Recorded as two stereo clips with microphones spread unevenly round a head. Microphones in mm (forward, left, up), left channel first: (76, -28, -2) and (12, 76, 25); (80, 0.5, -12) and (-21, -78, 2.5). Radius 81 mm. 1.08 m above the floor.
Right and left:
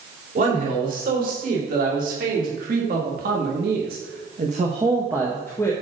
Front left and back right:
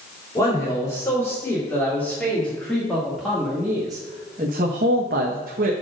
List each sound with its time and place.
0.3 s a man speaking: 110° left, 3.5 m; by 5.7 s 130° right, 1.0 m